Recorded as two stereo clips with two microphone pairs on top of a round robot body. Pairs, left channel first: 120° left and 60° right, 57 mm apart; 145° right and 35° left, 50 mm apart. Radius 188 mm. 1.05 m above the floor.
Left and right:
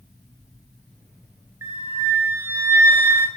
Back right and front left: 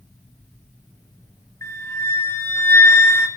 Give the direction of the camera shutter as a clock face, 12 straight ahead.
I don't hear a camera shutter.